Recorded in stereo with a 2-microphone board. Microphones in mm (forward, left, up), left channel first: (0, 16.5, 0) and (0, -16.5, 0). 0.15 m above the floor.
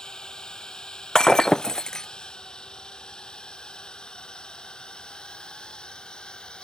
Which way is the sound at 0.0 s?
20° left (ahead or behind).